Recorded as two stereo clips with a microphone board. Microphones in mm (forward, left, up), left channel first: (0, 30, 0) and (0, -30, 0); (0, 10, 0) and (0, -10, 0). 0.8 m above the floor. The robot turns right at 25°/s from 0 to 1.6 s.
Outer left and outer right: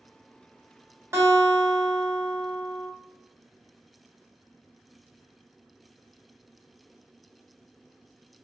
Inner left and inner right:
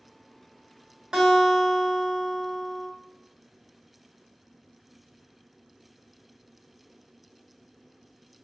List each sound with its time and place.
1.1 s a guitar: 40° right (ahead or behind), 1.7 m; by 2.9 s 30° right (ahead or behind), 1.7 m